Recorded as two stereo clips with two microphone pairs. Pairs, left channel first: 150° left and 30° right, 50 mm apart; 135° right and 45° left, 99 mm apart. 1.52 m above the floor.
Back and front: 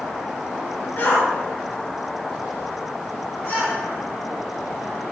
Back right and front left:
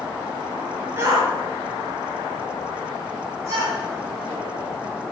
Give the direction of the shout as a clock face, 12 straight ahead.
8 o'clock.